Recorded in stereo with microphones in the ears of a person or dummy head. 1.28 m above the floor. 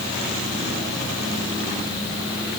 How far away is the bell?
I don't hear a bell.